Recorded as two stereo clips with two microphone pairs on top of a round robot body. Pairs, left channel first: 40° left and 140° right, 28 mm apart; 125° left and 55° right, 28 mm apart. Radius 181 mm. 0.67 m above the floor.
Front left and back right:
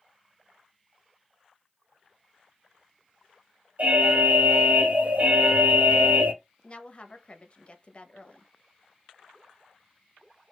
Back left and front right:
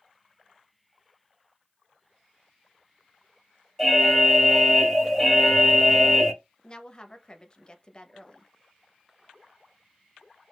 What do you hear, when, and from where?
3.8 s an alarm: 160° right, 1.3 m
6.6 s a woman speaking: 75° left, 1.0 m